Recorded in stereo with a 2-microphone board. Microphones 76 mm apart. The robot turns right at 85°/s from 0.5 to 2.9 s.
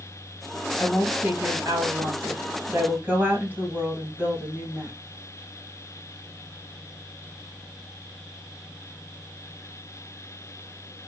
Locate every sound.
0.8 s a woman speaking: 155° left, 2 m; by 4.9 s 25° right, 2 m